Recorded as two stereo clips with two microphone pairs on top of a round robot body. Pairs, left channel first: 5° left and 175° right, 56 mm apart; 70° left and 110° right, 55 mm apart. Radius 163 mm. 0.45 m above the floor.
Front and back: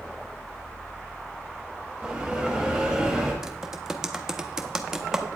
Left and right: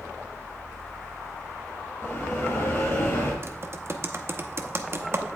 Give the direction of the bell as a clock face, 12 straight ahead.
8 o'clock.